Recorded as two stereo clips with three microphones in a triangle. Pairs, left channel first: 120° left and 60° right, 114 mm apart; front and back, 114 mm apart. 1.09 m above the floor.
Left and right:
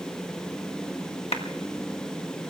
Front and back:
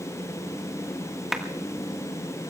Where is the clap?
90° left, 1.7 m.